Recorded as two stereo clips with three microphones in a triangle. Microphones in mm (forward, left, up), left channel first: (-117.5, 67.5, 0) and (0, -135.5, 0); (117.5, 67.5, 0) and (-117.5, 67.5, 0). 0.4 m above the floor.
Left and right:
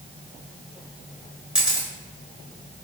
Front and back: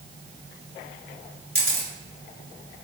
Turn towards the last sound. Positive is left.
turn(degrees=-145)